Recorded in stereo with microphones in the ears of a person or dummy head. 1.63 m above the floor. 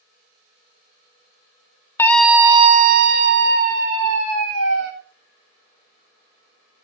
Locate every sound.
2.0 s a scream: 15° left (ahead or behind), 0.8 m; by 4.9 s 80° right, 2.5 m